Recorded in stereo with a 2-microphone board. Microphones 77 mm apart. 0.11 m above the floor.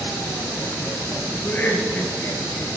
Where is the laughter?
25° left (ahead or behind), 2 m.